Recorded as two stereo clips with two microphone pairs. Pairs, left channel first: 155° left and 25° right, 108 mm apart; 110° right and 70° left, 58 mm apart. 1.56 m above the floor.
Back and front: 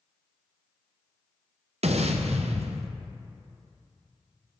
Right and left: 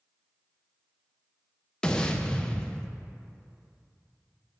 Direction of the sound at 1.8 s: 35° right.